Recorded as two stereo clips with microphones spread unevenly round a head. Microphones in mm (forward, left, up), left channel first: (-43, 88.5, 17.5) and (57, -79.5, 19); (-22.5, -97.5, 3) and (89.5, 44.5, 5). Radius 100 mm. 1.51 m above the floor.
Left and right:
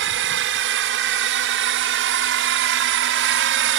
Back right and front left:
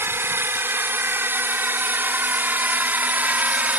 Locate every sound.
0.0 s a drone: 25° right; by 3.8 s 30° right